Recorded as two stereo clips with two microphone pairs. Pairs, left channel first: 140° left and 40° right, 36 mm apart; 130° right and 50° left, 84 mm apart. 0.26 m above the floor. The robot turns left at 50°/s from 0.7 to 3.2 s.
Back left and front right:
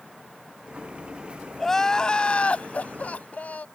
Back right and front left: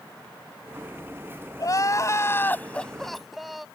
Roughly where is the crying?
Behind right.